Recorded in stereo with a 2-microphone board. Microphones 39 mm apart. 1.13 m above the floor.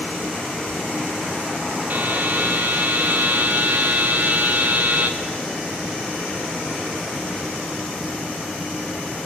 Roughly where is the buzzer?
Right.